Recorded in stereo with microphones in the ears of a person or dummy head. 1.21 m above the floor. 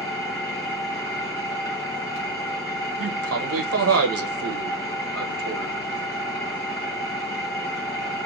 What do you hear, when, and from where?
0.0 s an engine running: 20° left (ahead or behind), 1.3 m
3.0 s a man speaking: 75° right (ahead or behind), 0.8 m